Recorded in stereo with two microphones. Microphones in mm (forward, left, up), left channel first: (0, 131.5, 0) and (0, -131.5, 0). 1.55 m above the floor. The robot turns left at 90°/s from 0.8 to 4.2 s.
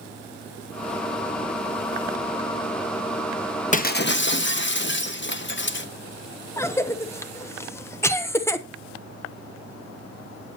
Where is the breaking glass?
140° left, 0.9 m; by 5.9 s 95° left, 0.9 m.